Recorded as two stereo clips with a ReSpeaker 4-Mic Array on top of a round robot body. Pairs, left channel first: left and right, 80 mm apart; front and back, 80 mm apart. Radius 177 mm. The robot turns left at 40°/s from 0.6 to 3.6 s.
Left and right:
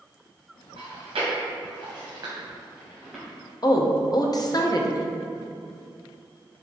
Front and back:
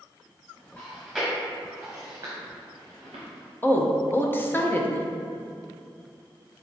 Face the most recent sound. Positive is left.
turn(degrees=60)